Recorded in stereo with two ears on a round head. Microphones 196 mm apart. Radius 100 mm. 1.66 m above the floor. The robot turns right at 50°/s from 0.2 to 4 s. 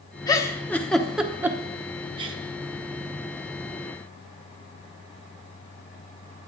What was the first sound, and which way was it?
A giggle, 20° left (ahead or behind).